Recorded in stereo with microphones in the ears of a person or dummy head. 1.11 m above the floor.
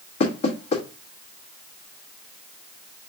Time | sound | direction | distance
0.2 | knocking | 40° left (ahead or behind) | 1.5 m